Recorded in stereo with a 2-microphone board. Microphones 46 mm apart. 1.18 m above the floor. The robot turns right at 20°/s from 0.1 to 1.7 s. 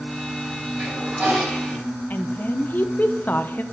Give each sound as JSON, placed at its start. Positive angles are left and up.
{"t": 0.8, "sound": "a toilet flushing", "side_deg": -45, "distance_m": 4.0}
{"t": 2.1, "sound": "a woman speaking", "side_deg": 45, "distance_m": 0.6}